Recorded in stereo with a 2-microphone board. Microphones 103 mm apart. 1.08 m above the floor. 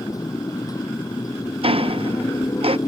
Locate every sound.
0.0 s a motorcycle: 35° left (ahead or behind)
1.6 s ticking: 60° right (ahead or behind)